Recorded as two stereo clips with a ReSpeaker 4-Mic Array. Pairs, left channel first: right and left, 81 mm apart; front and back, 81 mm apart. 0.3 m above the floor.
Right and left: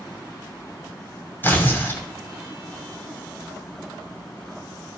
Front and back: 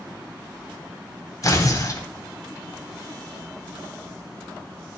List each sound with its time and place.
1.4 s tearing paper: 35° right, 1.8 m